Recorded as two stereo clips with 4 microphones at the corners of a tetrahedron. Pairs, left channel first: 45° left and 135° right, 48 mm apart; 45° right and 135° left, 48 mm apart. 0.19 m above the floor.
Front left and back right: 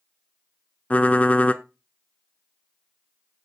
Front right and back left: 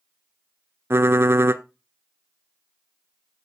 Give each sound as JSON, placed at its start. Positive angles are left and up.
{"t": 0.9, "sound": "typing on a keyboard", "azimuth_deg": 105, "distance_m": 0.7}